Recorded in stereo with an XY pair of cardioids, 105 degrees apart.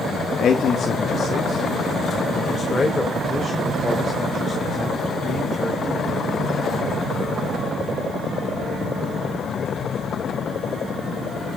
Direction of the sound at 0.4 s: 55° left.